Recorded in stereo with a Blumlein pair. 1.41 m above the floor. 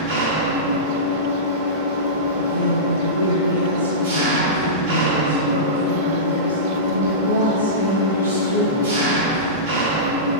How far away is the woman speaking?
About 2.5 m.